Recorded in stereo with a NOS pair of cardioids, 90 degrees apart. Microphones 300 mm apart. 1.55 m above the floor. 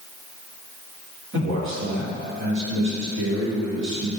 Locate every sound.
1.3 s a man speaking: 60° right, 3 m